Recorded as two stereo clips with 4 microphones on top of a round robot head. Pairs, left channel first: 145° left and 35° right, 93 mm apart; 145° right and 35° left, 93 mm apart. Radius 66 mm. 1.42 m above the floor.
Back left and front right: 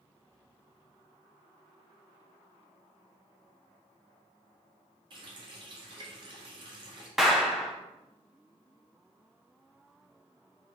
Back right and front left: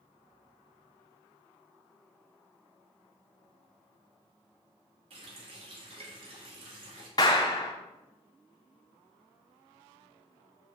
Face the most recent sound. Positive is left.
turn(degrees=-125)